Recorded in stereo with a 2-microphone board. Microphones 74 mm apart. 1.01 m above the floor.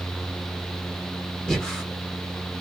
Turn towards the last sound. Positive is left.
turn(degrees=10)  # may be behind; listen again after turning